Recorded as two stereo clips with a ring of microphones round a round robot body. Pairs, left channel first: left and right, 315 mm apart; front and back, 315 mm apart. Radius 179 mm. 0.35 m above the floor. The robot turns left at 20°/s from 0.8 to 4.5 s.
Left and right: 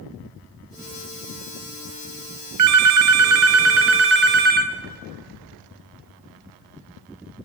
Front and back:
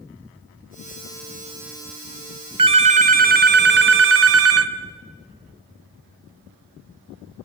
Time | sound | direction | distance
2.6 | a phone ringing | 110° right | 1.0 m